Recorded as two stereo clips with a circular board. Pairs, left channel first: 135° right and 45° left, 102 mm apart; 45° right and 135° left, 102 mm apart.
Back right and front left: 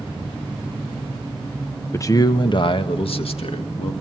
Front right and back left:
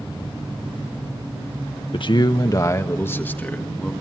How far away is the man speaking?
About 1.1 m.